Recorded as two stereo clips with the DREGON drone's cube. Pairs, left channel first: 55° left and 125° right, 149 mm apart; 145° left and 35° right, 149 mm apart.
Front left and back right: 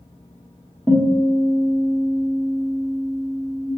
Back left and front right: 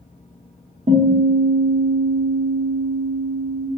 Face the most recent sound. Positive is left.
turn(degrees=-20)